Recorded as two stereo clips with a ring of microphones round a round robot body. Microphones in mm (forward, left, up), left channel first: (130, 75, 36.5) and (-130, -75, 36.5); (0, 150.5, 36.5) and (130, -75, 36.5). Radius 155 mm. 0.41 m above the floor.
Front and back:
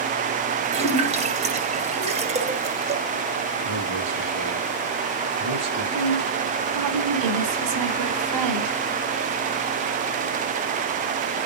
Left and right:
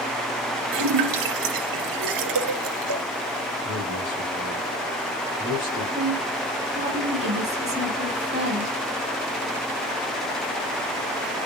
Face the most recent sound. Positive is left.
turn(degrees=-130)